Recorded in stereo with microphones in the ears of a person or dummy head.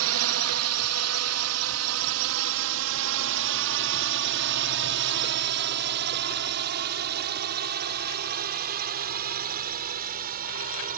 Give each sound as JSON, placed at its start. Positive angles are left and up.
{"t": 0.0, "sound": "a drone", "side_deg": -75}